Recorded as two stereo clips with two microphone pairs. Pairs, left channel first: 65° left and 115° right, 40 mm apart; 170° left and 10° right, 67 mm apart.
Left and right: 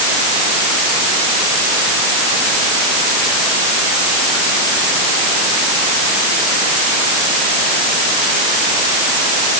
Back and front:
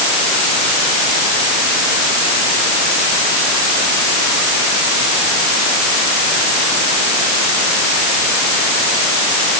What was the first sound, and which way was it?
Only background noise.